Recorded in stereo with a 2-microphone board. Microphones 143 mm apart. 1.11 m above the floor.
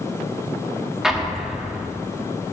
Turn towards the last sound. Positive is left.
turn(degrees=-5)  # may be behind; listen again after turning